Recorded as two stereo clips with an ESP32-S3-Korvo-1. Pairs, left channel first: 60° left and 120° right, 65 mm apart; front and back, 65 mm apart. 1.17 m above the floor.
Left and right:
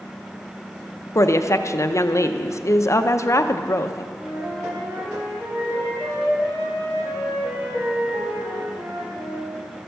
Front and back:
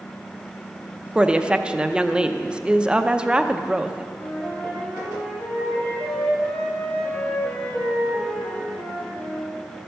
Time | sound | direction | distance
1.1 | a woman speaking | 105° left | 0.6 m
4.2 | a flute | 65° right | 4.5 m